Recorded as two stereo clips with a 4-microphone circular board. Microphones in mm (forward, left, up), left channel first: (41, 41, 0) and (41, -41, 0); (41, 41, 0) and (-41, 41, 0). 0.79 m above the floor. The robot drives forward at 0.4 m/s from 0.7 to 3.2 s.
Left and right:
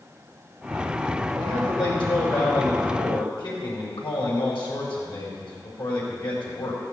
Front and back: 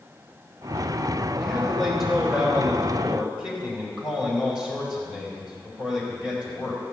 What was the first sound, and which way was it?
A man speaking, 85° left.